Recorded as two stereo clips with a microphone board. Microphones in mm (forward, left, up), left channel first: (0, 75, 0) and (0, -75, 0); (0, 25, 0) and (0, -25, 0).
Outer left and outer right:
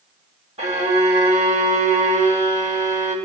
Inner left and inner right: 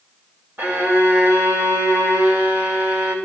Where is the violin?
50° right (ahead or behind), 2.5 m.